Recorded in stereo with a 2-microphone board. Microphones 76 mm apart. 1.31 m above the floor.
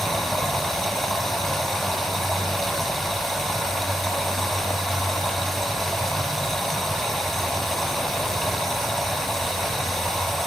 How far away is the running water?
About 4.5 m.